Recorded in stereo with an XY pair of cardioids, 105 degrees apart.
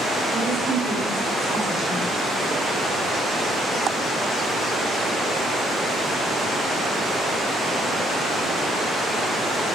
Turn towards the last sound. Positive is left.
turn(degrees=-15)